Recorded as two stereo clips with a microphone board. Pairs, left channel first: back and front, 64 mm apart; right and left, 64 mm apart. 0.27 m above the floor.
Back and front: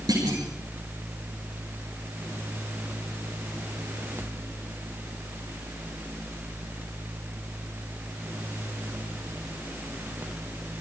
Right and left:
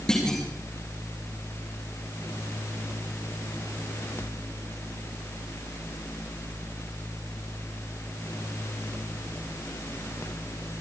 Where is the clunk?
10° right, 7.5 m.